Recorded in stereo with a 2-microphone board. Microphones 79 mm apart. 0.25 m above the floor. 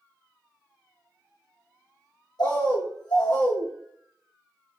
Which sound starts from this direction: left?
A bird, at 2.4 s.